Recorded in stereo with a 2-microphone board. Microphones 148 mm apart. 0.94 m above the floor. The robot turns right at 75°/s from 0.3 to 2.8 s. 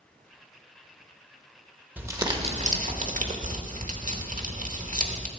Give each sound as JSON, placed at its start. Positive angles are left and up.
{"t": 2.0, "sound": "crumpling", "azimuth_deg": -170, "distance_m": 1.0}